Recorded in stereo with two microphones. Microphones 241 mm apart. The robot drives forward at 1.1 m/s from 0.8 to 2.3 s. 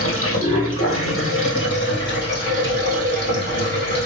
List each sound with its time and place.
0.0 s running water: 65° left (ahead or behind), 2 m; by 4.1 s 45° left (ahead or behind), 3 m